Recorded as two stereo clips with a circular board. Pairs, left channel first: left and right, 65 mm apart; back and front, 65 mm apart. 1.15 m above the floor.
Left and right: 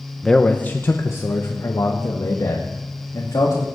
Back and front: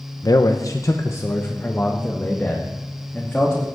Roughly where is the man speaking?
Behind.